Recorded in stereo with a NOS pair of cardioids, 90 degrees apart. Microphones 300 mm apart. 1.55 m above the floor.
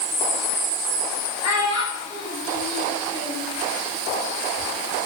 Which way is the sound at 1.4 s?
65° left.